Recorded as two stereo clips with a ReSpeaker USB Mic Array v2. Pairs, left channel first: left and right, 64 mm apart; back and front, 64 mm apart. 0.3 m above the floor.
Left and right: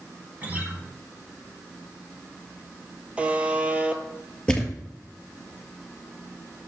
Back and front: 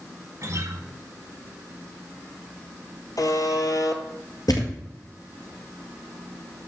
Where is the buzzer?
160° right, 1.0 m.